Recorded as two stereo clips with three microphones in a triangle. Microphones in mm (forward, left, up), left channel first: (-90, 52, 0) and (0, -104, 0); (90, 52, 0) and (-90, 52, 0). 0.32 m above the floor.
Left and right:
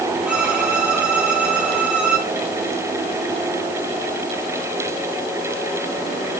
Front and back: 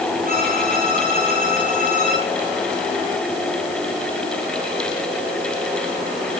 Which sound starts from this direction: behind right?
A violin, at 0.2 s.